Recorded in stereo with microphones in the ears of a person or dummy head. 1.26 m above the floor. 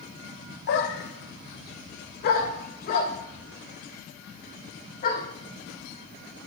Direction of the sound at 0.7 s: 55° left (ahead or behind).